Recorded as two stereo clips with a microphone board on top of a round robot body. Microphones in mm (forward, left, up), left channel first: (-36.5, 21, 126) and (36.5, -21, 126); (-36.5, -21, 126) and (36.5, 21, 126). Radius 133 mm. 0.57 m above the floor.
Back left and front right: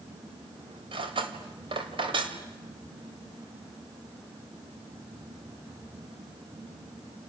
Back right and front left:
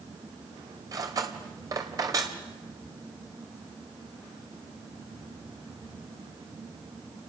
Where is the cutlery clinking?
20° right, 2.5 m.